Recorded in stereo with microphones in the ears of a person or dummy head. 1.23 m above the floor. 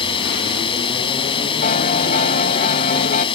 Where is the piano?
45° left (ahead or behind).